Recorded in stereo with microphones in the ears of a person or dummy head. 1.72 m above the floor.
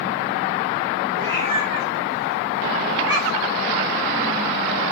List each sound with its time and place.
1.2 s a cat meowing: 35° right (ahead or behind), 3 m; by 3.6 s 10° right (ahead or behind), 2 m